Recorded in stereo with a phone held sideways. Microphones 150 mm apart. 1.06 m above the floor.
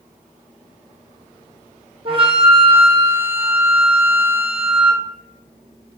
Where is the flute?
40° right (ahead or behind), 0.6 m.